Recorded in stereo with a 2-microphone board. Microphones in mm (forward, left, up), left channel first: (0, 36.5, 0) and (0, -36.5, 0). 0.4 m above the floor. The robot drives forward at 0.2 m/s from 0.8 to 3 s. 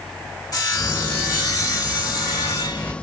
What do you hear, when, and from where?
0.5 s sawing: 50° left (ahead or behind), 2.5 m; by 2.9 s 55° left (ahead or behind), 2.5 m